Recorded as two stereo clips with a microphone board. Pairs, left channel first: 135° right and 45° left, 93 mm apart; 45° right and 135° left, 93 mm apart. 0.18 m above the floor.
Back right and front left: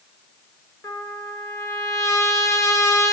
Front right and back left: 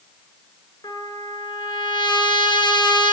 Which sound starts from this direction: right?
A trumpet, at 0.8 s.